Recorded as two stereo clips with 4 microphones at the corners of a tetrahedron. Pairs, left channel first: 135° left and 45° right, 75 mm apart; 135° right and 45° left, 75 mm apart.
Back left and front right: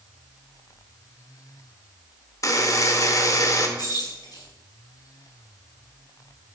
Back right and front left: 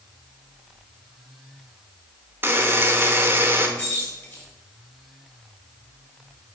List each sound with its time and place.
2.4 s a buzzer: 105° left, 0.8 m
3.8 s keys jangling: 165° left, 3 m